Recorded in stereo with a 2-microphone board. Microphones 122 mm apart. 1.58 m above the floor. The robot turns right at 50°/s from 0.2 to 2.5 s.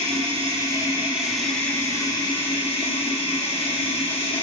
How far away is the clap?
No clap in this recording.